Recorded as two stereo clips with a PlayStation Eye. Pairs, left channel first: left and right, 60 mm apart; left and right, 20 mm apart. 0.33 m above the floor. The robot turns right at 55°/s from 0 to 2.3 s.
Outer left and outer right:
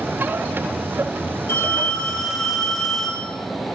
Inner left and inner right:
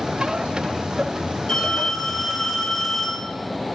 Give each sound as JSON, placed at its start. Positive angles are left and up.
{"t": 1.5, "sound": "a phone ringing", "azimuth_deg": 135, "distance_m": 3.5}